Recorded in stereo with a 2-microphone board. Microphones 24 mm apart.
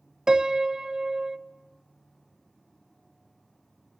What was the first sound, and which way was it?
A piano, 25° right (ahead or behind).